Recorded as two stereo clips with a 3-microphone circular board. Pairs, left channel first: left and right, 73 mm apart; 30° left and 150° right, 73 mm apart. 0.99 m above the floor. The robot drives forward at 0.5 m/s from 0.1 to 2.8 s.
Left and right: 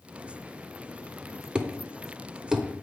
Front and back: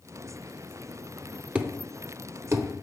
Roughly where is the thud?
Behind right.